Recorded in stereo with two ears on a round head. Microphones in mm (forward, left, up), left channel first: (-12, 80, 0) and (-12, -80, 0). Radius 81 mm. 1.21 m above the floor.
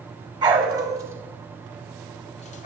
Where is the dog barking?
25° right (ahead or behind), 2.5 m; by 2.7 s 45° left (ahead or behind), 1.3 m.